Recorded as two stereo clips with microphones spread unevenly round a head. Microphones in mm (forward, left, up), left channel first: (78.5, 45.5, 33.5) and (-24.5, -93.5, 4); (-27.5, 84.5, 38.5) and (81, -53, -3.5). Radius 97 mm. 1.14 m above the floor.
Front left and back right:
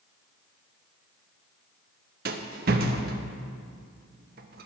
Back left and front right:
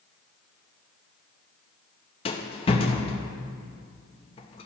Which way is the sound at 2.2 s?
175° right.